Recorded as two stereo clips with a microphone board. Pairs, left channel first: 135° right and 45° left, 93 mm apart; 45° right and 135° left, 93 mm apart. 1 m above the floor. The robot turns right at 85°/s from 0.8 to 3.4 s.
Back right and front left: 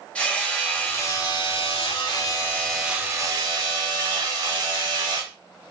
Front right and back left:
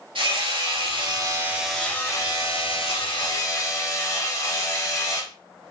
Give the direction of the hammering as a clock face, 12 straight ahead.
7 o'clock.